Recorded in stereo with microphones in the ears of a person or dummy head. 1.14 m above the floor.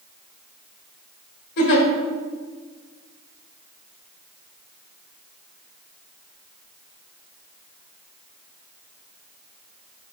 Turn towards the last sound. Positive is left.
turn(degrees=60)  # may be behind; listen again after turning